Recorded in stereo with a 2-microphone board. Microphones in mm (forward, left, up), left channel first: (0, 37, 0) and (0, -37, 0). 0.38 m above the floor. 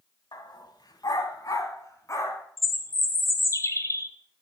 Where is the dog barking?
75° left (ahead or behind), 1.0 m; by 2.5 s 40° left (ahead or behind), 1.7 m.